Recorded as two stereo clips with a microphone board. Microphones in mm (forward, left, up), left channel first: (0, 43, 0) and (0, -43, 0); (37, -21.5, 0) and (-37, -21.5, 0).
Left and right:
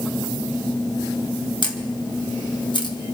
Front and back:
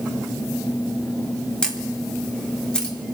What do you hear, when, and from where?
1.6 s a camera shutter: 75° left, 1.5 m